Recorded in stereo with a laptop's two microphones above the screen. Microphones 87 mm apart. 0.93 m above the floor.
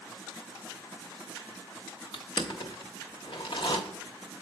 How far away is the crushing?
About 0.8 m.